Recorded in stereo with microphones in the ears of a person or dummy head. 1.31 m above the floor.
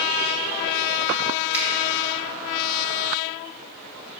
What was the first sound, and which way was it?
A finger snap, 15° right (ahead or behind).